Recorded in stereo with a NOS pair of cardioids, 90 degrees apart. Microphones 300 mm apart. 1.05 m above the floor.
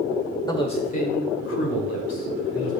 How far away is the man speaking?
About 2 m.